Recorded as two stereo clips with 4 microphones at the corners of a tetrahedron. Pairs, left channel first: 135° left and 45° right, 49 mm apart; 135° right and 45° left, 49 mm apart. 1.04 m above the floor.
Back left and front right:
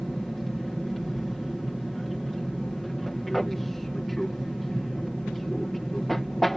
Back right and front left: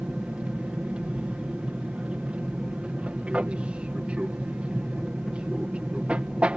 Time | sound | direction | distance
0.0 | an aircraft | 55° left | ?